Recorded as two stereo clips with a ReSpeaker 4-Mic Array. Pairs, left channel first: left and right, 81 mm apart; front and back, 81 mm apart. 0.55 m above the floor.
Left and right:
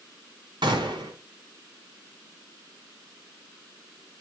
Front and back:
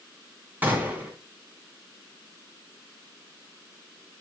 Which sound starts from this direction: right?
A gunshot, at 0.6 s.